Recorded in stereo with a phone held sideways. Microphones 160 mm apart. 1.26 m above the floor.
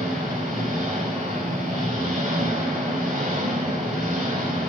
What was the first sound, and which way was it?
An engine running, 60° right (ahead or behind).